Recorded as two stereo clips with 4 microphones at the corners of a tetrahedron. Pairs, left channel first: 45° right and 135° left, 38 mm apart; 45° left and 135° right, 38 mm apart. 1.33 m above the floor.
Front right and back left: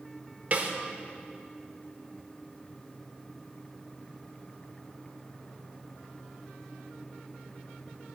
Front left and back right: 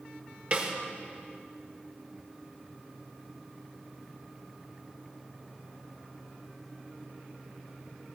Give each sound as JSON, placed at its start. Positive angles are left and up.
{"t": 0.5, "sound": "a snare drum", "azimuth_deg": 175, "distance_m": 1.6}